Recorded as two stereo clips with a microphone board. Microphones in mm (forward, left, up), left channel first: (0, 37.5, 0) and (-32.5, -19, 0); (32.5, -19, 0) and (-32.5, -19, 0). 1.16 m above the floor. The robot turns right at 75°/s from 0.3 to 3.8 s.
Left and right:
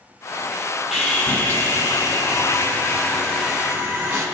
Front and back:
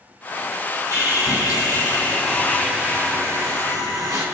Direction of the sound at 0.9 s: 40° right.